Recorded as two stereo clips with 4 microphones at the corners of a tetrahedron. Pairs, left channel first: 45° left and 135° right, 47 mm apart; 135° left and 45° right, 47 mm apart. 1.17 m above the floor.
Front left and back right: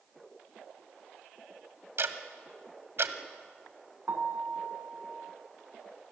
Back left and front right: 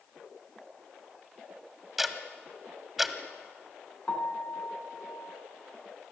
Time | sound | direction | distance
2.0 | ticking | 130° right | 1.6 m
4.1 | a piano | 170° right | 3.5 m